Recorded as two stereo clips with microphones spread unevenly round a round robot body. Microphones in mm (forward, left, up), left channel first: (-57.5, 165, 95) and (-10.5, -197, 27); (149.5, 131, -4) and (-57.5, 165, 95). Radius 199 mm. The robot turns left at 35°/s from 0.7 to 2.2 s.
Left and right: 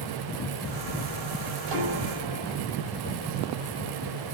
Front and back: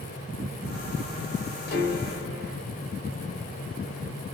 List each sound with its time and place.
1.7 s a piano: 30° right, 3 m; by 2.6 s 50° right, 3 m